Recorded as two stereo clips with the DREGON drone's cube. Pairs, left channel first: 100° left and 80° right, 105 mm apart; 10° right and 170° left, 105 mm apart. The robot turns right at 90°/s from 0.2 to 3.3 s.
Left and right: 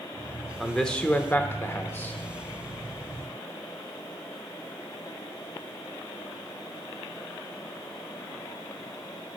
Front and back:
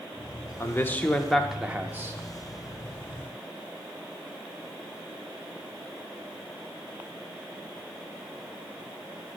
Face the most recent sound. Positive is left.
turn(degrees=-110)